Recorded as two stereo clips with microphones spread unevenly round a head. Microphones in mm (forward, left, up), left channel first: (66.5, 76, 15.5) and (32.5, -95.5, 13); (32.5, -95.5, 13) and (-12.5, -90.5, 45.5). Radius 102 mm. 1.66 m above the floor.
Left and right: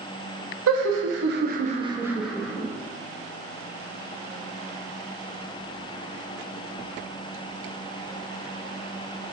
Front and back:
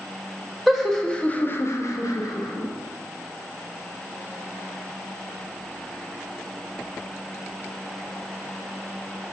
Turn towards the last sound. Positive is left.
turn(degrees=5)